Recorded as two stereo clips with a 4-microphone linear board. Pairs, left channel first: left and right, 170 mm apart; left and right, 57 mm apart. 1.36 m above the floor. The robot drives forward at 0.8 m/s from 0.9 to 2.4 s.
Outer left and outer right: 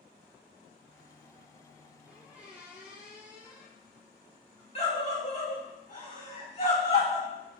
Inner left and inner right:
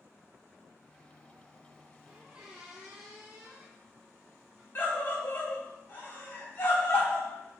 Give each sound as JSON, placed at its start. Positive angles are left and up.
{"t": 2.1, "sound": "a squeak", "side_deg": -10, "distance_m": 2.0}
{"t": 4.8, "sound": "a scream", "side_deg": 40, "distance_m": 3.0}